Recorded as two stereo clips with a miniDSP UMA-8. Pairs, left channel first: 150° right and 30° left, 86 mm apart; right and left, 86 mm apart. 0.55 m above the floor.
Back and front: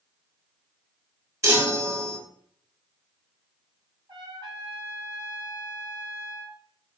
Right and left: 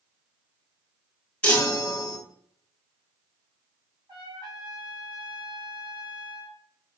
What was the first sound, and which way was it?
A chime, 20° right.